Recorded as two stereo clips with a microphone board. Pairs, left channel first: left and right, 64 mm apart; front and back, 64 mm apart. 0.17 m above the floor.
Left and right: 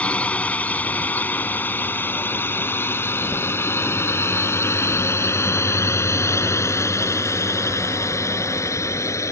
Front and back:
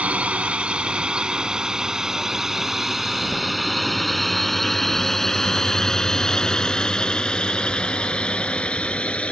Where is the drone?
135° left; by 9.3 s 70° left.